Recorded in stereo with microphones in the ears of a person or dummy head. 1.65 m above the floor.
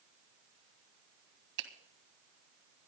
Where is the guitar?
No guitar in this recording.